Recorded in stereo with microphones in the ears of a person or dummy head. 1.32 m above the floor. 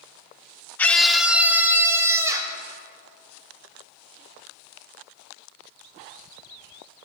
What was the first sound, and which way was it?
A scream, 15° left (ahead or behind).